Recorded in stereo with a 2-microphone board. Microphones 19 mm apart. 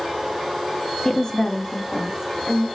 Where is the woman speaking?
30° left (ahead or behind), 0.6 m; by 2.7 s 70° left (ahead or behind), 1.8 m.